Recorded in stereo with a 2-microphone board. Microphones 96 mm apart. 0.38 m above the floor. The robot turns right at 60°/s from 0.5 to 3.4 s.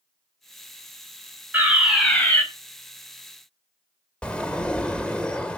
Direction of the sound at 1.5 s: 25° right.